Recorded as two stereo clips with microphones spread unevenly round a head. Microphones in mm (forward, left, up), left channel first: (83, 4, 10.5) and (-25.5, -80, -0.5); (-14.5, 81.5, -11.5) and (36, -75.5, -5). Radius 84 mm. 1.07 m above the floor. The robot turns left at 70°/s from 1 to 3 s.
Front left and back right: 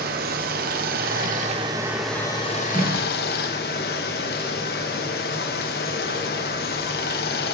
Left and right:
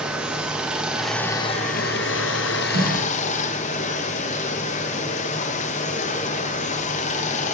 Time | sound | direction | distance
0.0 | running water | 160° right | 0.8 m
2.7 | a snare drum | 60° right | 2 m